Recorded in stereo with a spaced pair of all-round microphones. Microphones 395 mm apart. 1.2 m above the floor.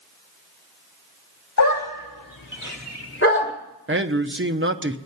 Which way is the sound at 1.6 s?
45° left (ahead or behind).